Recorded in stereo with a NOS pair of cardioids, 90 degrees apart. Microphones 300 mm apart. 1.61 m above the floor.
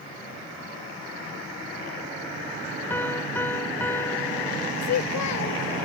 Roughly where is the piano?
Ahead.